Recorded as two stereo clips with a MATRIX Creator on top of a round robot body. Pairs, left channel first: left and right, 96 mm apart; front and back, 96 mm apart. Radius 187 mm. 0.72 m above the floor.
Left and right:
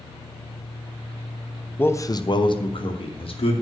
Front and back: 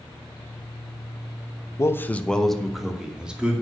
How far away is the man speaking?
About 1.0 m.